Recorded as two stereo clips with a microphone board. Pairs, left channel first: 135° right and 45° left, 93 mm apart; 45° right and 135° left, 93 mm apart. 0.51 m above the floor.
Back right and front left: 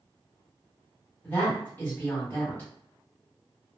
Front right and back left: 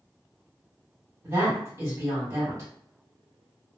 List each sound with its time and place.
1.2 s a woman speaking: 175° left, 1.6 m